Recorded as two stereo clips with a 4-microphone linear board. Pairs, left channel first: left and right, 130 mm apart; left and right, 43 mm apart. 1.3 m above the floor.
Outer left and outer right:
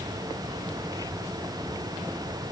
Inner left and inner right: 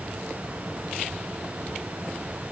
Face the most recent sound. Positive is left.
No sound to turn to.